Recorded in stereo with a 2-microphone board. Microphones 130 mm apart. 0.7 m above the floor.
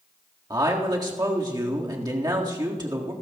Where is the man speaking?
30° right (ahead or behind), 1.7 m.